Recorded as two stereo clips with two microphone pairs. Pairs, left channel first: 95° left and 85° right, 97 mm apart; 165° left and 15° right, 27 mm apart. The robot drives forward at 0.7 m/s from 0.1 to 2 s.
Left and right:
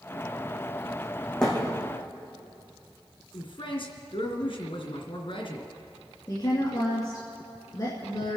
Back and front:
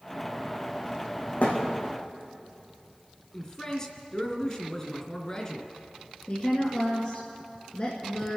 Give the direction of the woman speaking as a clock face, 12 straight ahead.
7 o'clock.